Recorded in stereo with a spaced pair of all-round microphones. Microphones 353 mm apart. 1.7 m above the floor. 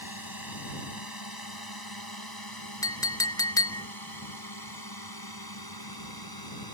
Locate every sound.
0.0 s a drone: 75° left (ahead or behind); by 6.7 s 85° left
2.8 s a clink: 10° left (ahead or behind)